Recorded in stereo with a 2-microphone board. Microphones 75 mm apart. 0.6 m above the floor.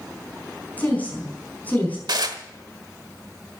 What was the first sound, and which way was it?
A woman speaking, 20° left (ahead or behind).